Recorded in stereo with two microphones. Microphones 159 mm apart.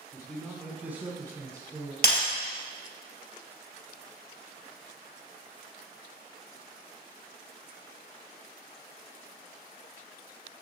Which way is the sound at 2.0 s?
70° left (ahead or behind).